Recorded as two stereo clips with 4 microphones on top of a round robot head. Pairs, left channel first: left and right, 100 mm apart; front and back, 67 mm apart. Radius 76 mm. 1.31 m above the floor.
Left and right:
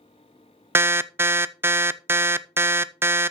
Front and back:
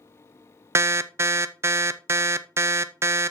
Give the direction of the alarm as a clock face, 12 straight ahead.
5 o'clock.